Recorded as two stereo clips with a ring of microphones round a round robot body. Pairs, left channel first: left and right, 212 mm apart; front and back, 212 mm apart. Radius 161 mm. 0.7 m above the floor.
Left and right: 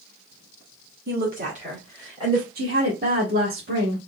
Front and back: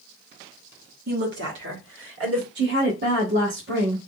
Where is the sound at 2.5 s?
140° right, 1.4 m.